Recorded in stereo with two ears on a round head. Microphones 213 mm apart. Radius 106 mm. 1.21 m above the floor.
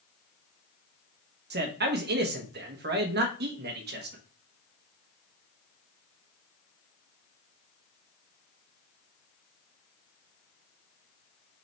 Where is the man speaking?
45° right (ahead or behind), 1.2 m.